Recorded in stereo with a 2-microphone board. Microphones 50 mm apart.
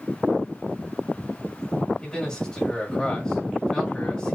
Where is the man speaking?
10° left (ahead or behind), 2 m.